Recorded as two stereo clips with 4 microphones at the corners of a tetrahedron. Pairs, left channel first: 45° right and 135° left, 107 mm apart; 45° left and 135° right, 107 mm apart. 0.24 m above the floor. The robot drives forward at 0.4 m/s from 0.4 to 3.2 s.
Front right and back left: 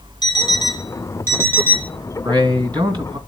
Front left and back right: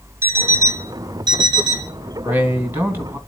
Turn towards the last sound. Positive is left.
turn(degrees=165)